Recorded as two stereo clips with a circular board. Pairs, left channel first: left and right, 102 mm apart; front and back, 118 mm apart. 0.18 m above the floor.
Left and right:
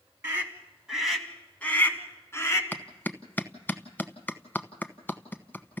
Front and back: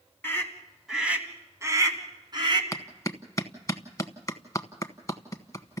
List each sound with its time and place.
0.2 s a scream: 55° right, 1.7 m; by 2.6 s 145° left, 2.5 m
2.7 s a clap: 35° left, 1.0 m